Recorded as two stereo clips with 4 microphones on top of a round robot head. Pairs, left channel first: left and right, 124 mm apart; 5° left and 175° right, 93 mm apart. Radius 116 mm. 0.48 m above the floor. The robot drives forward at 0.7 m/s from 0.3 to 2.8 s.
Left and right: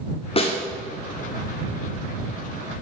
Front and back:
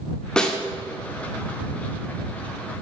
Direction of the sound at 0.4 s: 85° left.